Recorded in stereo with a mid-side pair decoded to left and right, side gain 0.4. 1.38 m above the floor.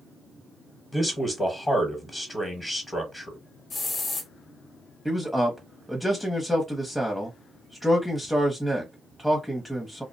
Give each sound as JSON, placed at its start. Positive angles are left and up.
{"t": 0.9, "sound": "a man speaking", "azimuth_deg": 25, "distance_m": 1.1}
{"t": 3.7, "sound": "a hiss", "azimuth_deg": 50, "distance_m": 1.0}
{"t": 5.0, "sound": "a man speaking", "azimuth_deg": 5, "distance_m": 0.7}